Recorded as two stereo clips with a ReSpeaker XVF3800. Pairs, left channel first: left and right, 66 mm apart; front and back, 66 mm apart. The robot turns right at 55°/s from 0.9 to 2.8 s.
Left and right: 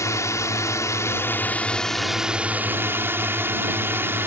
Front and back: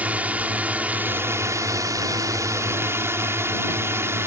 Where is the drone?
115° left; by 4.3 s 140° right.